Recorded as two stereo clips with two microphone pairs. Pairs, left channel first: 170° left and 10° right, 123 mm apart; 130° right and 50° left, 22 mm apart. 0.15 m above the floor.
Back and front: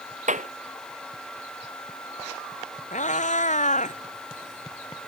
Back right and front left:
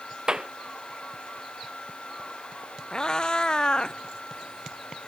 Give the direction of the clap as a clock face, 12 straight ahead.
12 o'clock.